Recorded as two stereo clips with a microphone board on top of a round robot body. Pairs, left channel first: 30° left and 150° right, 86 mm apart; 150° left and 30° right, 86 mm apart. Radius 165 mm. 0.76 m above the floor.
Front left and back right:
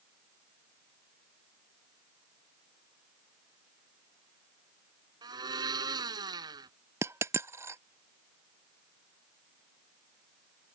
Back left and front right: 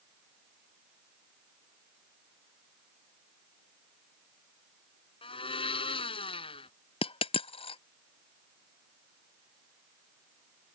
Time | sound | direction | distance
5.2 | a blender | 165° left | ?
7.0 | a dropped coin | 150° left | ?